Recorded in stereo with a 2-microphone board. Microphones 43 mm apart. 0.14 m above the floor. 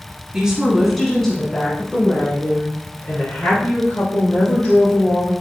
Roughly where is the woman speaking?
Centre.